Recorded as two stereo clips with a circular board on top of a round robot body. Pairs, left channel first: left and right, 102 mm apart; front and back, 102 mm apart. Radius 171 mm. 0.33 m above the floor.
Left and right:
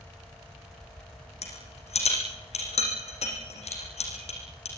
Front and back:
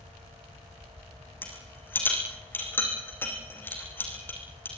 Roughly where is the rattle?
Left.